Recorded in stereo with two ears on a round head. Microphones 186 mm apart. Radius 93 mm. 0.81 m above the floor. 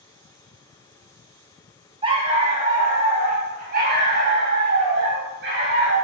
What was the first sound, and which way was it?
A dog barking, 25° right (ahead or behind).